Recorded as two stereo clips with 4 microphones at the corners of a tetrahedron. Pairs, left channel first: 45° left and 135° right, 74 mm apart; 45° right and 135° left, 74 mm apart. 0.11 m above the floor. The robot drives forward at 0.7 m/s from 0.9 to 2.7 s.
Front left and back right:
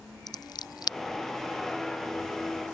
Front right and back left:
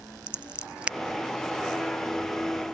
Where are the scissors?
60° left.